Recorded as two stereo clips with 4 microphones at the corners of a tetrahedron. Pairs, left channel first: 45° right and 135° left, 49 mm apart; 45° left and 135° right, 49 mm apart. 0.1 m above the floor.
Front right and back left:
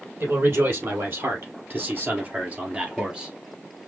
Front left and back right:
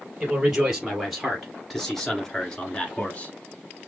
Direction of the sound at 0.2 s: 150° left.